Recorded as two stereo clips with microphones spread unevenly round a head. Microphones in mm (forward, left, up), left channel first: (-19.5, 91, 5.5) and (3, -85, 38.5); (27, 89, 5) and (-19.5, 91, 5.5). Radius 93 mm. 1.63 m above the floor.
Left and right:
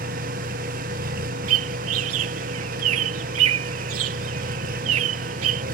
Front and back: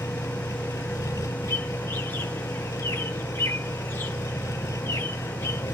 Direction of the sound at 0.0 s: 40° right.